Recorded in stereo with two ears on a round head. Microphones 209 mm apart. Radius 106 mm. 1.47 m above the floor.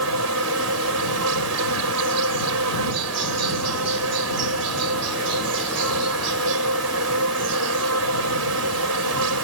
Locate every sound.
0.0 s an insect: 75° right (ahead or behind)